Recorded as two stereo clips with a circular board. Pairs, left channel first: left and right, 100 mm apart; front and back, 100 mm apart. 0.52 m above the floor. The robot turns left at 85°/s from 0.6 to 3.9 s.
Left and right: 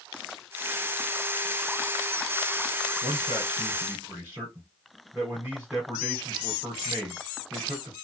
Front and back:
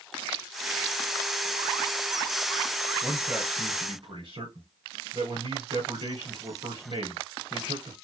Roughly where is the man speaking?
Right.